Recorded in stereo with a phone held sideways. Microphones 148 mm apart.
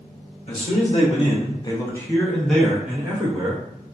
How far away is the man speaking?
About 1.0 m.